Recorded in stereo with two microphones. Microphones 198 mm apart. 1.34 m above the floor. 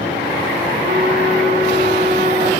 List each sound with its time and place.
0.8 s a flute: 50° right (ahead or behind), 5 m